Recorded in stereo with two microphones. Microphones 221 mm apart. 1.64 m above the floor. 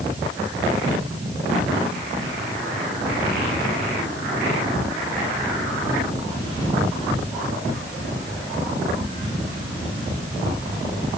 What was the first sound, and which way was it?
Only background noise.